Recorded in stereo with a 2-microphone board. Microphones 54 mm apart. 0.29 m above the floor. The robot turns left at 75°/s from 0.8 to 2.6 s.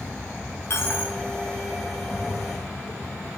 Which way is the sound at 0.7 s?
50° left (ahead or behind).